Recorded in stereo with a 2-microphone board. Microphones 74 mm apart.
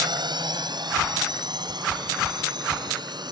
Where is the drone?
70° right (ahead or behind).